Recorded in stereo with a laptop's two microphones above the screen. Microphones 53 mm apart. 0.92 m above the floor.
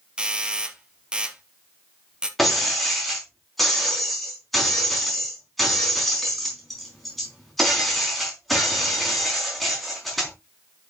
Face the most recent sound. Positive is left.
turn(degrees=0)  # may be behind; listen again after turning